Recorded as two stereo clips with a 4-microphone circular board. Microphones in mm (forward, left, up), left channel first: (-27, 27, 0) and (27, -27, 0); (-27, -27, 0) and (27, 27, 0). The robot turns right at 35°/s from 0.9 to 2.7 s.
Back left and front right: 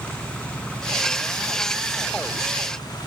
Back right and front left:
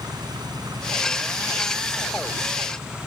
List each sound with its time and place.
0.0 s an engine running: 60° left; by 3.1 s 125° left